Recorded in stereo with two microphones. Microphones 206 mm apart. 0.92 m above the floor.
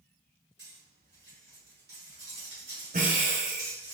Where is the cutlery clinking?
60° right (ahead or behind), 2.5 m.